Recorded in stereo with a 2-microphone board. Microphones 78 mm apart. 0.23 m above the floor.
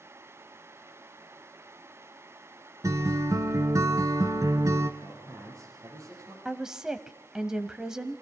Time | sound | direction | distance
2.8 | a guitar | 45° right (ahead or behind) | 1.2 m
5.0 | a man speaking | 50° right (ahead or behind) | 8 m
6.5 | a woman speaking | 10° right (ahead or behind) | 1.0 m